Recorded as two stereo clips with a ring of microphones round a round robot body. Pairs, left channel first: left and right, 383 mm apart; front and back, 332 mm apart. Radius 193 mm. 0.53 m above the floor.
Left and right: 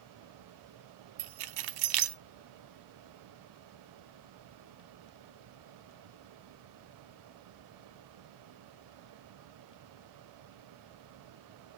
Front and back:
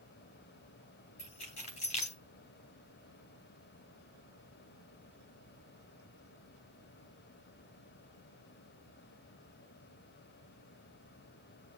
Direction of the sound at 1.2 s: 70° right.